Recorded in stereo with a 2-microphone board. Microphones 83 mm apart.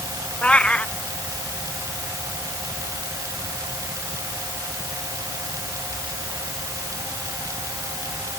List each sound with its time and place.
0.4 s a cat meowing: 15° left (ahead or behind)